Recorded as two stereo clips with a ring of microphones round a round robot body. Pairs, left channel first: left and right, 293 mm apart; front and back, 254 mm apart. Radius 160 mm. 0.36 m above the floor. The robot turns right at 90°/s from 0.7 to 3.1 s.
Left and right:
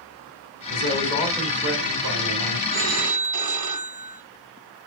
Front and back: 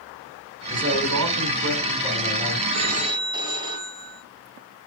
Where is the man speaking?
120° left, 4 m; by 2.6 s 70° right, 4 m.